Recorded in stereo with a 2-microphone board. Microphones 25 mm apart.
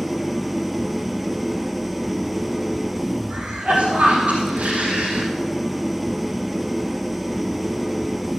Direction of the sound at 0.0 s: Centre (ahead or behind).